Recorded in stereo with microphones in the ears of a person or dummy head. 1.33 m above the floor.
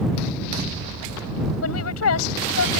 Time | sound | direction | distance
1.6 | a woman speaking | 90° left | ?